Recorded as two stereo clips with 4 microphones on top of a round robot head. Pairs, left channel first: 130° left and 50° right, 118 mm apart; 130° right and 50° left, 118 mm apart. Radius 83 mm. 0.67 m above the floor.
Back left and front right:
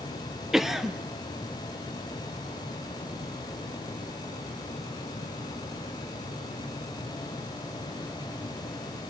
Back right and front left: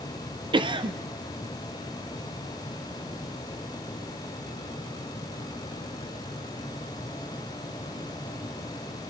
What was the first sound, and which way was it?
A cough, 35° left.